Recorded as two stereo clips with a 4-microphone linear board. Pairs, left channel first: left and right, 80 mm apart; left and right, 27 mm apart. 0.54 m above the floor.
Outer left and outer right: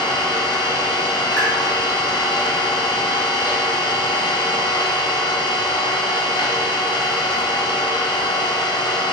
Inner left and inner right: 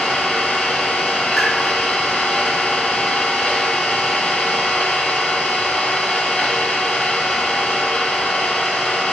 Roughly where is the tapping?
Left.